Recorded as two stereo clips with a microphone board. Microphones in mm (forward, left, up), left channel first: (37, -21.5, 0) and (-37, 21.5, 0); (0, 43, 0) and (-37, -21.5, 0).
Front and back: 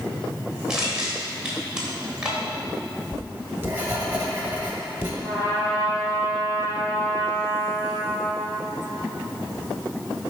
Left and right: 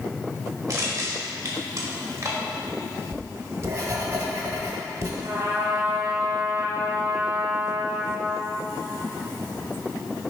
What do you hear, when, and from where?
0.7 s crushing: 130° right, 1.3 m
3.1 s writing: 150° right, 1.2 m
5.2 s a trumpet: 90° right, 2 m